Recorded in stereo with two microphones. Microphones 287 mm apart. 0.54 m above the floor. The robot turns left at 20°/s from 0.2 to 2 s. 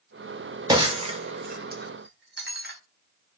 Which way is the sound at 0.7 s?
15° right (ahead or behind).